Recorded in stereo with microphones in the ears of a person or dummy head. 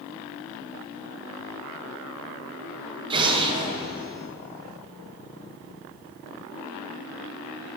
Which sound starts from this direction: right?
An explosion, at 3.1 s.